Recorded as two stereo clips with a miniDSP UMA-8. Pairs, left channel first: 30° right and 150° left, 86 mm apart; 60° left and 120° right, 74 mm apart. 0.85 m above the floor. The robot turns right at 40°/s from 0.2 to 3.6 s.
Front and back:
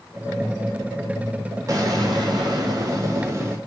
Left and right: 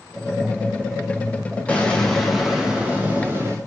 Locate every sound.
1.7 s an explosion: 125° left, 0.6 m; by 3.6 s 160° right, 0.6 m